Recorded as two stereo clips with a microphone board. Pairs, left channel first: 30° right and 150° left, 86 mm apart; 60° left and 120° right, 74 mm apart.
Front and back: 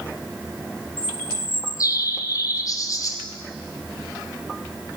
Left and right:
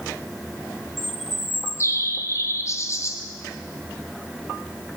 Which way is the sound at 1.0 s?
15° left.